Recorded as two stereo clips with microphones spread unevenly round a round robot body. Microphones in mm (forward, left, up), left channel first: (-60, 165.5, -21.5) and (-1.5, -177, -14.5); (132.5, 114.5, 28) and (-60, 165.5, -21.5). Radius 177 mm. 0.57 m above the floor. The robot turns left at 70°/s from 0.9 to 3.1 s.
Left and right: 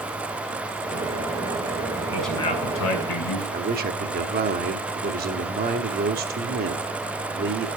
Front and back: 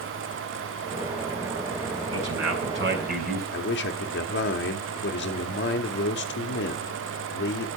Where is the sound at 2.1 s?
160° right, 6 m; by 3.4 s 130° left, 6 m.